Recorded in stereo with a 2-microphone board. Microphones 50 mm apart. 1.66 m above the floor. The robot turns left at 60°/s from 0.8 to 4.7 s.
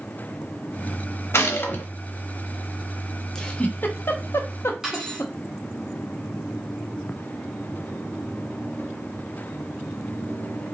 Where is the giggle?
10° left (ahead or behind), 0.7 m; by 5.3 s 70° left (ahead or behind), 0.7 m.